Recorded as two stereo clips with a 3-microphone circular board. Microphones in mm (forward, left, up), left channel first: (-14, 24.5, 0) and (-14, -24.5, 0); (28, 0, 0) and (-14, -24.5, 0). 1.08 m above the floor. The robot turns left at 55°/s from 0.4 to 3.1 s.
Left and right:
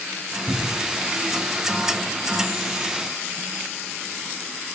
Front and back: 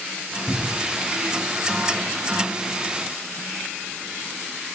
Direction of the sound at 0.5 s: 60° left.